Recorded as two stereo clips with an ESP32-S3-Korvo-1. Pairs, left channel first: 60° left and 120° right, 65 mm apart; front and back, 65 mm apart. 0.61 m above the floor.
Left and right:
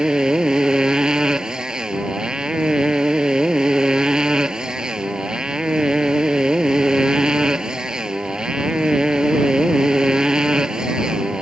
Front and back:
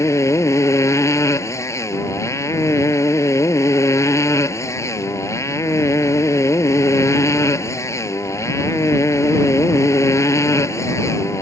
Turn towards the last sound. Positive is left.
turn(degrees=-40)